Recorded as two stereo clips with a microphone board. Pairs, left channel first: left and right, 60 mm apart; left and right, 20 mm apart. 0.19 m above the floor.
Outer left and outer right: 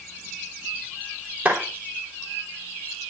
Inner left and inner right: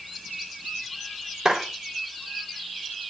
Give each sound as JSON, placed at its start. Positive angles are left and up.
{"t": 1.4, "sound": "a clap", "side_deg": -30, "distance_m": 3.5}